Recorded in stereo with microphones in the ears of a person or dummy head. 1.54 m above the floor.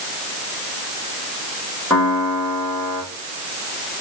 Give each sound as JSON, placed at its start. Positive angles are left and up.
{"t": 1.9, "sound": "a piano", "side_deg": 10, "distance_m": 1.8}